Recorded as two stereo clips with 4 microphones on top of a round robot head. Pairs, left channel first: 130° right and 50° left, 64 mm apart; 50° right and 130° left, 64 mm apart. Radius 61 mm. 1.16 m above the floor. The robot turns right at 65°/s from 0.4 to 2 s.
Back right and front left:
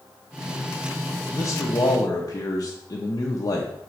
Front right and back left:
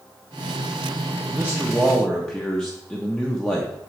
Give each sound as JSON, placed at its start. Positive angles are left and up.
{"t": 1.3, "sound": "a man speaking", "azimuth_deg": -165, "distance_m": 0.9}